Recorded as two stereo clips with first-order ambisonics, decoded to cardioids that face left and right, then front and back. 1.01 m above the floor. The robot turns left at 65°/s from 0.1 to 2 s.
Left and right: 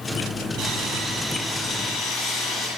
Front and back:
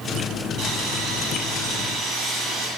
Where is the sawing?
130° right, 8.5 m; by 2.7 s 135° left, 8.5 m.